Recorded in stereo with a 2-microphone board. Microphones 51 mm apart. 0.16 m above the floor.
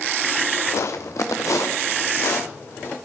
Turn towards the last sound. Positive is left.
turn(degrees=60)  # may be behind; listen again after turning